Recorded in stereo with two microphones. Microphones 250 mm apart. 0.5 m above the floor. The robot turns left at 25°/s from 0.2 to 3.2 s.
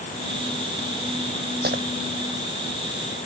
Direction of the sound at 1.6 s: 40° right (ahead or behind).